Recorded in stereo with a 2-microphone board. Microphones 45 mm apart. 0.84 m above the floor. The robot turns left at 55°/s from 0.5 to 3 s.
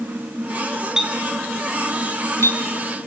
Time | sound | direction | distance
1.0 | a clink | 15° right (ahead or behind) | 4 m